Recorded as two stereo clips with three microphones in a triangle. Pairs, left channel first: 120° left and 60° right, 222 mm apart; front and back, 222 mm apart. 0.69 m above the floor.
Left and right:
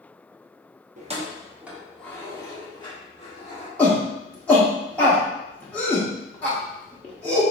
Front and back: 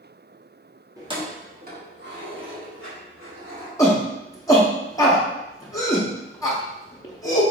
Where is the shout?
50° left, 0.6 m.